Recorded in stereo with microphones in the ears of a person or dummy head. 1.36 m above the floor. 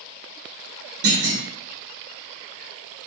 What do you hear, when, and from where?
1.0 s a clunk: 55° right (ahead or behind), 0.9 m